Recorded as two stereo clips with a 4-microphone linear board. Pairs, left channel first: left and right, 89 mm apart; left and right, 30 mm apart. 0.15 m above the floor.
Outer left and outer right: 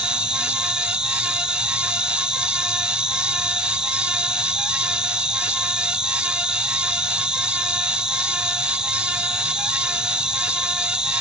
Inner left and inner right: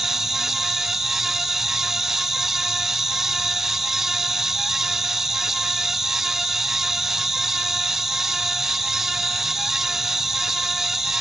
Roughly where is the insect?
Centre.